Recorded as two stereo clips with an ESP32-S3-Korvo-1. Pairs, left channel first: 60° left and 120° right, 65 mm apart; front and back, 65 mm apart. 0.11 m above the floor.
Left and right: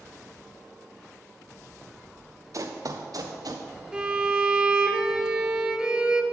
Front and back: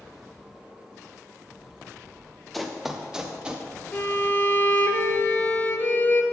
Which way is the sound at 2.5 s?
90° right.